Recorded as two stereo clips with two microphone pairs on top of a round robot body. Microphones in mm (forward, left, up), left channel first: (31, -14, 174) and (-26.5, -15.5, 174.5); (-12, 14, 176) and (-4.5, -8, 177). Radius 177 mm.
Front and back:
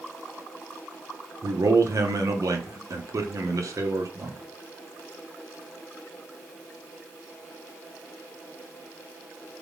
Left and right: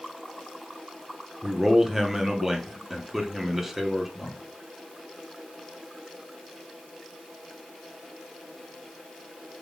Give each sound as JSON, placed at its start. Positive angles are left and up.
{"t": 1.4, "sound": "a man speaking", "azimuth_deg": -150, "distance_m": 0.8}